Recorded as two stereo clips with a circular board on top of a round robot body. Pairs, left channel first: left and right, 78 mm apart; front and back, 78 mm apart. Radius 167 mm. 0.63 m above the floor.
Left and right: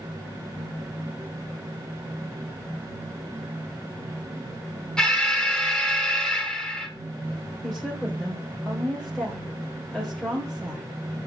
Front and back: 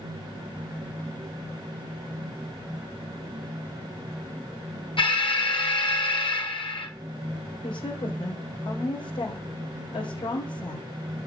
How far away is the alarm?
About 3.5 m.